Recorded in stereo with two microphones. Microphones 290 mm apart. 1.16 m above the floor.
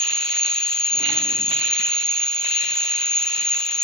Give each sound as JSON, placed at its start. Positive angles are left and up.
{"t": 0.0, "sound": "an insect", "side_deg": 0, "distance_m": 0.9}